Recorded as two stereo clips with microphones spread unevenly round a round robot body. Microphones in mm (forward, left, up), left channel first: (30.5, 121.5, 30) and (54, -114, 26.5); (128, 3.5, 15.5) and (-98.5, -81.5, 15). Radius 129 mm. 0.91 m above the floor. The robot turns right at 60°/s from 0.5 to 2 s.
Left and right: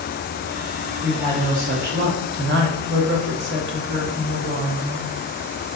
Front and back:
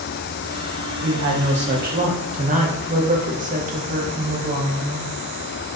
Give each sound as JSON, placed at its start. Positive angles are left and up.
{"t": 1.0, "sound": "a woman speaking", "azimuth_deg": -165, "distance_m": 0.6}